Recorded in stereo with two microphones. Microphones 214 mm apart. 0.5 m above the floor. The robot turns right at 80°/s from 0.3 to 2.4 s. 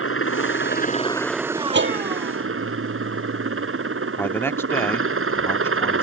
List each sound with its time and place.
0.0 s a helicopter: 95° left; by 6.0 s 95° right
1.7 s a bell: 55° right (ahead or behind); by 4.1 s 70° right (ahead or behind)
4.2 s a man speaking: 10° left (ahead or behind)